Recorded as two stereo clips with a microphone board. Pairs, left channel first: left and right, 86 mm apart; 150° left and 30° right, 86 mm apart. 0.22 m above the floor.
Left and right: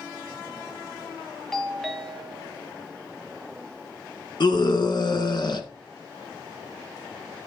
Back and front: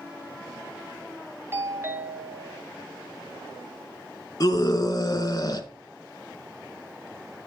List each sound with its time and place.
1.5 s a doorbell: 5° left, 2 m
4.4 s a scream: 110° left, 2.5 m